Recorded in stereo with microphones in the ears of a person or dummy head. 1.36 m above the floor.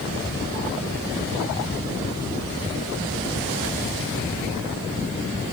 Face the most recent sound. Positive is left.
No sound to turn to.